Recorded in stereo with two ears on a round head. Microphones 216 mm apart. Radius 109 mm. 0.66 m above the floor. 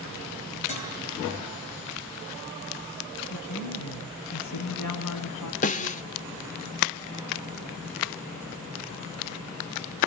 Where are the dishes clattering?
30° left (ahead or behind), 9.5 m.